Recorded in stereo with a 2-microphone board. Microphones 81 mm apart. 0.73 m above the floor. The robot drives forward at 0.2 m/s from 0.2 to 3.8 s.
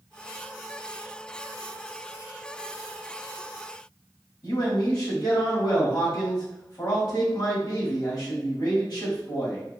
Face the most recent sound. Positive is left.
turn(degrees=55)  # may be behind; listen again after turning